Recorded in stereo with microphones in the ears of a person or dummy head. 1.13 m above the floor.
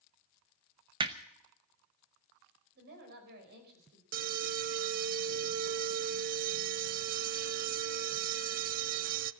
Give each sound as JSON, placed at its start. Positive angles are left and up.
{"t": 1.0, "sound": "hammering", "side_deg": -20, "distance_m": 0.9}
{"t": 2.8, "sound": "a woman speaking", "side_deg": -55, "distance_m": 5.5}
{"t": 4.1, "sound": "an alarm", "side_deg": -40, "distance_m": 0.5}